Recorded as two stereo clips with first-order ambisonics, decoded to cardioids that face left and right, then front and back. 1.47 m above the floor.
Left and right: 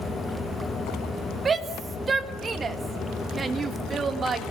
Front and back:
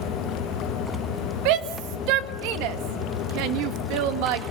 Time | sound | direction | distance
1.4 | a shout | 160° right | 1.8 m